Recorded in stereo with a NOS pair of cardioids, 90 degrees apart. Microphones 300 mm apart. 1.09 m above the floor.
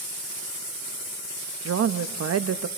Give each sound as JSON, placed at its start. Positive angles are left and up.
{"t": 1.6, "sound": "a woman speaking", "azimuth_deg": -55, "distance_m": 1.4}